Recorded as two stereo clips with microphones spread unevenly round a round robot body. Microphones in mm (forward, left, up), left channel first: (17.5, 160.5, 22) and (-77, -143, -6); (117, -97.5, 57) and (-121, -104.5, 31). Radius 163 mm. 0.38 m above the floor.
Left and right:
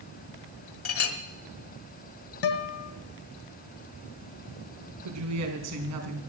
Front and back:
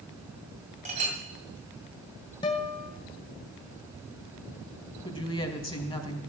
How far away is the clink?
About 1.9 m.